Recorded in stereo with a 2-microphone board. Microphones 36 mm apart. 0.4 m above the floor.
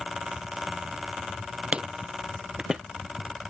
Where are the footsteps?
35° right (ahead or behind); by 2.8 s 15° right (ahead or behind).